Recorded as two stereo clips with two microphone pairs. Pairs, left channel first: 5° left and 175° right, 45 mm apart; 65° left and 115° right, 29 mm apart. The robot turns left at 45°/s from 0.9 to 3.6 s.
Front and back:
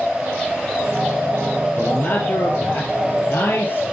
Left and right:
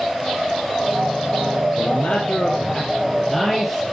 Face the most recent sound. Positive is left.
turn(degrees=-20)